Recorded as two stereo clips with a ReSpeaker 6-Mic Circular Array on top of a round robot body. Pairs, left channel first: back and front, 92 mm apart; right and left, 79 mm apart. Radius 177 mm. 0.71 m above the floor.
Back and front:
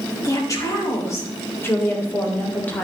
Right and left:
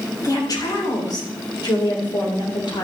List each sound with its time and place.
0.2 s a woman speaking: 130° right, 3.5 m; by 2.8 s 110° right, 3 m